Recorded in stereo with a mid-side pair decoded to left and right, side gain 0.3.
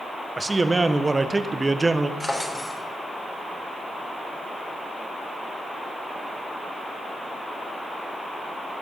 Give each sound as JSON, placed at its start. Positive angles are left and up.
{"t": 0.4, "sound": "a man speaking", "azimuth_deg": -30, "distance_m": 1.1}
{"t": 2.2, "sound": "a drawer", "azimuth_deg": 25, "distance_m": 3.5}